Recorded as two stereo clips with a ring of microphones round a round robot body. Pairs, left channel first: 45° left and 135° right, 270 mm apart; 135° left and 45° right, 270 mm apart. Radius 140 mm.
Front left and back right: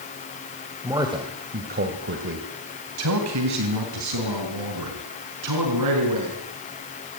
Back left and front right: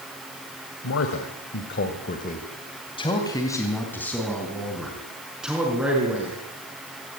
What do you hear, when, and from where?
0.8 s a man speaking: 145° left, 2 m; by 6.4 s 130° right, 5.5 m